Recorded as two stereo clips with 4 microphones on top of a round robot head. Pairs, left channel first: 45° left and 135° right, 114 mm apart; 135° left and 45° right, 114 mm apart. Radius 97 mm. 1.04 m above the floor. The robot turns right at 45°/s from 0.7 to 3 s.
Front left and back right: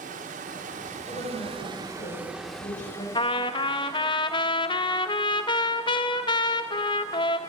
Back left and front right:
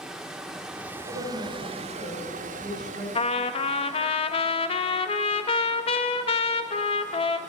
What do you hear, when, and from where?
0.0 s running water: 130° right, 1.2 m; by 7.5 s 25° right, 1.2 m
1.1 s a woman speaking: 15° right, 5 m; by 3.0 s 70° left, 5 m
3.1 s a trumpet: 95° left, 0.7 m